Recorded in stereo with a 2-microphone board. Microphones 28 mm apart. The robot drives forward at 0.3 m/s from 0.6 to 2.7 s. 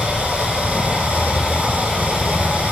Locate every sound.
0.0 s running water: 60° right (ahead or behind), 9 m; by 2.7 s 65° right (ahead or behind), 9 m